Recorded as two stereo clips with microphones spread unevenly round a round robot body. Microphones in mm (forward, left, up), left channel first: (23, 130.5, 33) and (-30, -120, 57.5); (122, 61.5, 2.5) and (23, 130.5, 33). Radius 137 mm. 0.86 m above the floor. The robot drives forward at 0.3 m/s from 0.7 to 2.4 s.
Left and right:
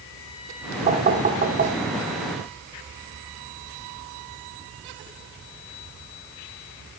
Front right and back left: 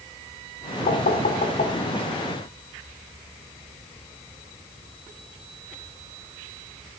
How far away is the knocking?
About 2.5 m.